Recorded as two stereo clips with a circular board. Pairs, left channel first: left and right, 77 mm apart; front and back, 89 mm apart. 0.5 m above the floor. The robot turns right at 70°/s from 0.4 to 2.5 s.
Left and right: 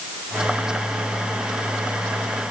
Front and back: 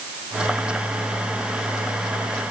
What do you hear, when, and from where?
Only background noise.